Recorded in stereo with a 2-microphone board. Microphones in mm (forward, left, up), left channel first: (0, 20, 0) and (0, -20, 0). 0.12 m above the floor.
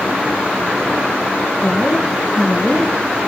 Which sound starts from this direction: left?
A woman speaking, at 1.6 s.